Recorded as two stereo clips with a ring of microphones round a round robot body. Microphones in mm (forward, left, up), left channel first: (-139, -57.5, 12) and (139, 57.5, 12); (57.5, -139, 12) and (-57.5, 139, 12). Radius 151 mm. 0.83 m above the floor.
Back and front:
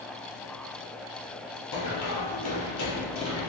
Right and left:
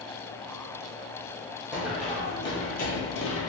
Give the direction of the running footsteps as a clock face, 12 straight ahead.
5 o'clock.